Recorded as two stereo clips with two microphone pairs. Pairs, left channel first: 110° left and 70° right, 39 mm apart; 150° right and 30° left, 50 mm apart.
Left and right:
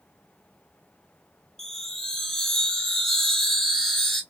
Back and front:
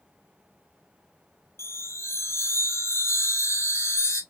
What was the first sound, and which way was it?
A chime, 170° right.